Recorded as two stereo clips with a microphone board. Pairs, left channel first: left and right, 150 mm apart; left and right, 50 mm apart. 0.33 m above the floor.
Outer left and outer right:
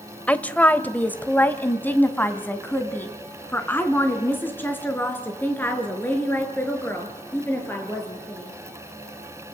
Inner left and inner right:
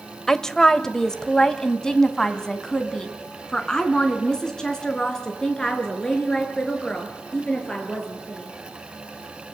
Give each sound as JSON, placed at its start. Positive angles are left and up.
{"t": 0.3, "sound": "a woman speaking", "side_deg": 10, "distance_m": 1.2}